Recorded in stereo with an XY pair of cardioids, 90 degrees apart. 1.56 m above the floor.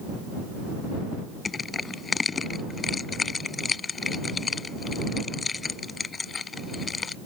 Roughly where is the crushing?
Ahead left.